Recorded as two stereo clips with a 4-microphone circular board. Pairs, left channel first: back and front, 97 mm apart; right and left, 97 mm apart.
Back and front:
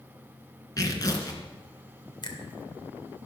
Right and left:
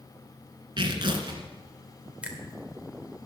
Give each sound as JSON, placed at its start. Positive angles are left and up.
{"t": 0.8, "sound": "tearing paper", "azimuth_deg": 130, "distance_m": 2.0}
{"t": 2.2, "sound": "a finger snap", "azimuth_deg": 165, "distance_m": 1.8}